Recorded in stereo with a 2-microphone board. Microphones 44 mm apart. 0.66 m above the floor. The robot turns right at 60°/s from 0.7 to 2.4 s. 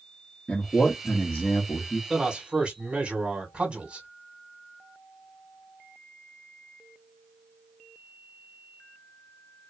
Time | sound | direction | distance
0.5 | a man speaking | 25° left | 1.0 m
2.1 | a man speaking | 5° right (ahead or behind) | 1.6 m